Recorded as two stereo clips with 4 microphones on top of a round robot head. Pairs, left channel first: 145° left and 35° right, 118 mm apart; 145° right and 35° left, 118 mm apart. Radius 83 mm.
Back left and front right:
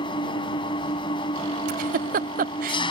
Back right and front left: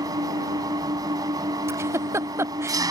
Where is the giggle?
35° right.